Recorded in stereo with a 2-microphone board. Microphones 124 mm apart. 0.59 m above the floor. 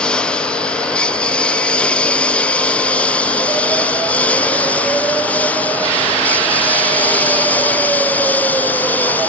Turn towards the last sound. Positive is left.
turn(degrees=15)  # may be behind; listen again after turning